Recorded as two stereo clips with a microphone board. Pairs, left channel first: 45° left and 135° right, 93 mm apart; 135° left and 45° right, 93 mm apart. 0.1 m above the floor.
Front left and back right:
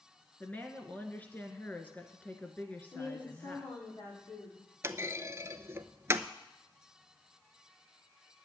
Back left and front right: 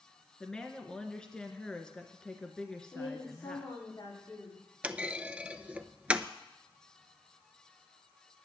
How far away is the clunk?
About 0.6 m.